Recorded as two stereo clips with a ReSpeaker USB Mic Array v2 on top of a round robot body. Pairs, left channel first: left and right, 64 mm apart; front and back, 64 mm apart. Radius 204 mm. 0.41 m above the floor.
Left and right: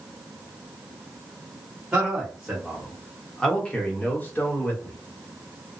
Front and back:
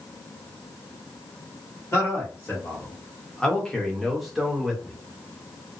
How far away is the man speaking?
About 1.5 m.